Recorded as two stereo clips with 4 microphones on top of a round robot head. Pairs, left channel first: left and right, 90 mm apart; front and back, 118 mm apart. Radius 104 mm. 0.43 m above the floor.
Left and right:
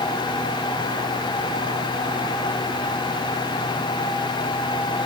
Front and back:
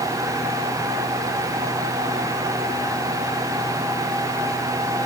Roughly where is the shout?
No shout in this recording.